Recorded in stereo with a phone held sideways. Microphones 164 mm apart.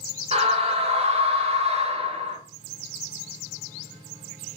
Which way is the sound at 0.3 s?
40° right (ahead or behind).